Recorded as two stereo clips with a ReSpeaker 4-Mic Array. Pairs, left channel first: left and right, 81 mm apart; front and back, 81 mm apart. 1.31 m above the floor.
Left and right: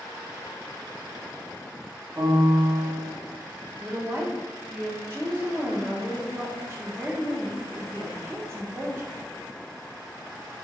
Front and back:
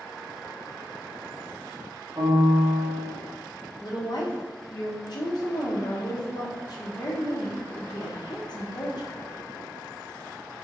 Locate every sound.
2.2 s a piano: 135° right, 0.9 m
3.8 s a woman speaking: 35° right, 0.9 m